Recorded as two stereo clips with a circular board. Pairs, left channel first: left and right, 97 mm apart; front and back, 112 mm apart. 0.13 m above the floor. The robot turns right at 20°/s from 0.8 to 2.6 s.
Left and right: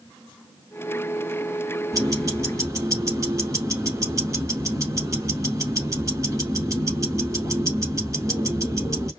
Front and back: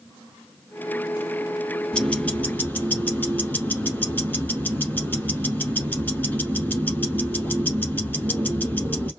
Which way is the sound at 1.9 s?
75° right.